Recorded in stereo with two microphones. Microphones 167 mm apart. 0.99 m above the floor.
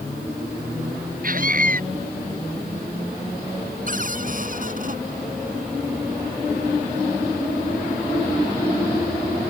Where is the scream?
55° right (ahead or behind).